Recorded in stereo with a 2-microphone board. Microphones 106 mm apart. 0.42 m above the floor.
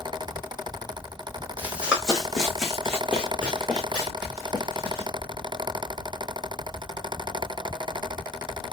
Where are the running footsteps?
15° right (ahead or behind), 1.0 m; by 5.1 s 20° left (ahead or behind), 3 m.